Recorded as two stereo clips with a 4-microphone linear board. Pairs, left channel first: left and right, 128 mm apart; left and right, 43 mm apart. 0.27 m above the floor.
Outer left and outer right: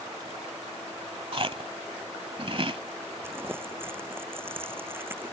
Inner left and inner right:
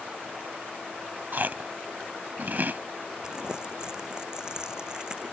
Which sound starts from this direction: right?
Chewing, at 1.3 s.